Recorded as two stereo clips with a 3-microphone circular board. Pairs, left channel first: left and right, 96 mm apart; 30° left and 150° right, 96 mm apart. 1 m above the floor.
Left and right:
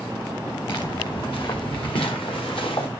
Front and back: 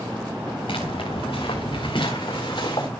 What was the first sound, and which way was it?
Footsteps, 55° left.